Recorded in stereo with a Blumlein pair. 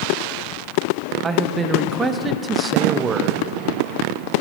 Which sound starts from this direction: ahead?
A man speaking, at 1.2 s.